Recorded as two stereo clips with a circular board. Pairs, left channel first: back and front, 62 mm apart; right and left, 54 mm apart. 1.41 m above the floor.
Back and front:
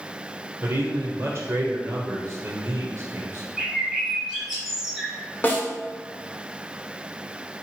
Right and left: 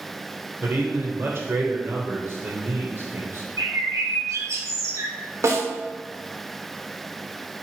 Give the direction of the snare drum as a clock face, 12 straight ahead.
8 o'clock.